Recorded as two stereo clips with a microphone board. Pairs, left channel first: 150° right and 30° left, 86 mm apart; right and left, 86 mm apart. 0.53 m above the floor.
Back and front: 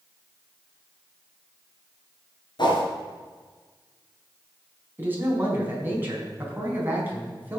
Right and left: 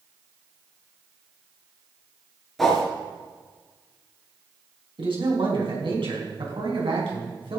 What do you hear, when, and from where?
2.6 s a whoosh: 175° right, 3.5 m
5.0 s a man speaking: 95° left, 4.5 m